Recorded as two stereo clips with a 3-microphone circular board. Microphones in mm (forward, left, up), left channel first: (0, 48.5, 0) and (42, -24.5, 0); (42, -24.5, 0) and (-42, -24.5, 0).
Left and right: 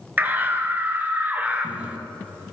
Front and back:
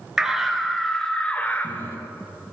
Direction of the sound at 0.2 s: 110° right.